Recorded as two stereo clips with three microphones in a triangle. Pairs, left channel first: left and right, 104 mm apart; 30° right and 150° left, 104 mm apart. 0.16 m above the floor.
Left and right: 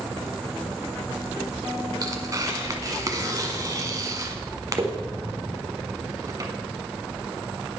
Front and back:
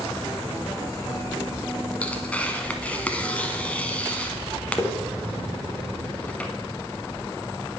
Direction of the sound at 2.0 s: 95° right.